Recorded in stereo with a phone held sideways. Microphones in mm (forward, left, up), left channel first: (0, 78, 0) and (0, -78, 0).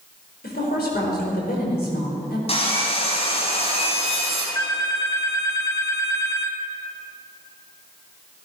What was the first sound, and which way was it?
A woman speaking, 85° left.